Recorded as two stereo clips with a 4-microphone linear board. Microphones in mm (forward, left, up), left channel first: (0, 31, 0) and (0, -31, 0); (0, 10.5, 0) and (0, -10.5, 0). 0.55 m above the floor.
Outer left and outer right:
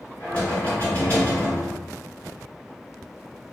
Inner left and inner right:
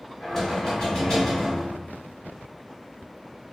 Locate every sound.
0.2 s knocking: 25° left (ahead or behind), 1.4 m